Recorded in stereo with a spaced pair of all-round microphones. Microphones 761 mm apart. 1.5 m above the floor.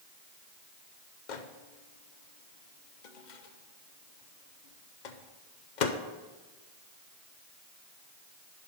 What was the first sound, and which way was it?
A microwave, 70° left (ahead or behind).